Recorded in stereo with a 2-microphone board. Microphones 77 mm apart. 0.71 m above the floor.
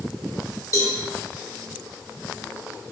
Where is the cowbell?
40° left (ahead or behind), 1.0 m.